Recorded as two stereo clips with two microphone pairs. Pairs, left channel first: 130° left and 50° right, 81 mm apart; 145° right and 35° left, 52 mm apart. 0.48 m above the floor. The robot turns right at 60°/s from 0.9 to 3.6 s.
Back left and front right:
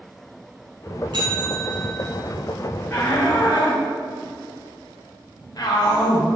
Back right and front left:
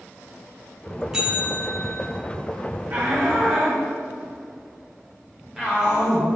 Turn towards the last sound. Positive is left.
turn(degrees=115)